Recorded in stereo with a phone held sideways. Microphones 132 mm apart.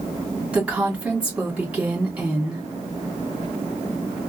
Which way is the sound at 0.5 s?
10° right (ahead or behind).